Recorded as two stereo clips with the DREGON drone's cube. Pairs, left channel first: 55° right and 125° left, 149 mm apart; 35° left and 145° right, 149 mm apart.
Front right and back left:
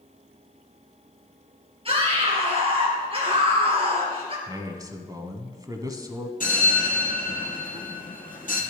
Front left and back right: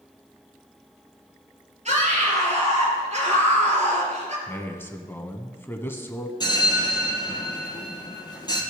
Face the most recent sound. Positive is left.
turn(degrees=-30)